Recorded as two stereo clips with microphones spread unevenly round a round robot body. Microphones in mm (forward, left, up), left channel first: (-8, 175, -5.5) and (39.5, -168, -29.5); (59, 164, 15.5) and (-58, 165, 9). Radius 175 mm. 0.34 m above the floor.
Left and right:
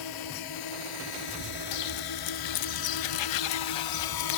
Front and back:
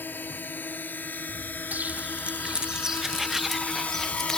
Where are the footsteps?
100° left; by 4.4 s 85° left.